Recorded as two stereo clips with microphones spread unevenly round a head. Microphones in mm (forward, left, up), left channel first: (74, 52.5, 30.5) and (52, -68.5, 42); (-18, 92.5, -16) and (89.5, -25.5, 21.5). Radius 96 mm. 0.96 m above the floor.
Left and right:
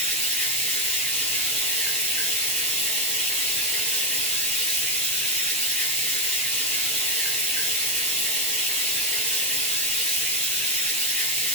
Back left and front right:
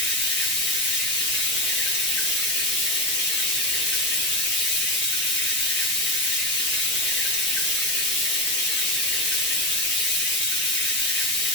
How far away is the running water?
About 0.8 m.